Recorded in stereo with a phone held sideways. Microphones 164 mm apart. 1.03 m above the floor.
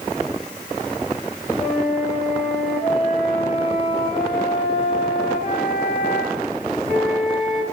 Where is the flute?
45° left (ahead or behind), 1.7 m.